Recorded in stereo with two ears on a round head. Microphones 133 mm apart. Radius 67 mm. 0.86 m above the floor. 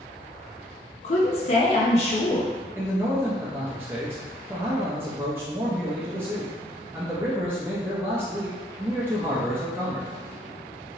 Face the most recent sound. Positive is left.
turn(degrees=-15)  # may be behind; listen again after turning